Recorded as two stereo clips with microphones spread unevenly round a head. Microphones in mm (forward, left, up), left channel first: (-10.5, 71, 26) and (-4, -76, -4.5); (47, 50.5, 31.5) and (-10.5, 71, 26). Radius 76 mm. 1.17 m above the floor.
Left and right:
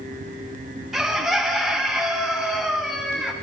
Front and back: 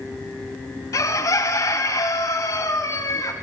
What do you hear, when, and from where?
0.9 s a bird: 5° left, 0.5 m